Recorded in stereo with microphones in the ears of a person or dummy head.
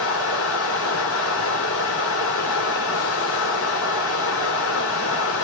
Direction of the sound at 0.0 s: 80° left.